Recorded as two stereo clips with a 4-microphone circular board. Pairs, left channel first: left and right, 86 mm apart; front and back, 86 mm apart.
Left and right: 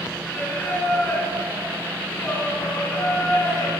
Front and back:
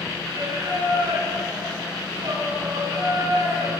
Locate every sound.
0.2 s singing: 155° left, 4 m